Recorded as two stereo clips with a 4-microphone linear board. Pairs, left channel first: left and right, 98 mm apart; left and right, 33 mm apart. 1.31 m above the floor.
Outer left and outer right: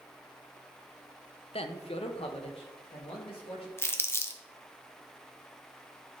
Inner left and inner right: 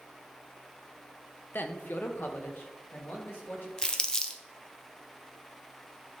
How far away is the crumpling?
About 0.8 m.